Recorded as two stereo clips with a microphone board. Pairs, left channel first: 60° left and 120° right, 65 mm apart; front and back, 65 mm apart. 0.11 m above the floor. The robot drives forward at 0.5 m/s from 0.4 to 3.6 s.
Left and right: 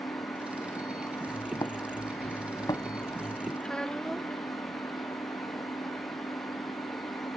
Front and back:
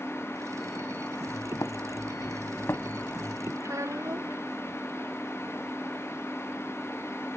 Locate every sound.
0.0 s an engine running: 85° left; by 7.4 s 90° left
1.3 s footsteps: 30° left; by 3.5 s 60° left
3.6 s a child speaking: 140° left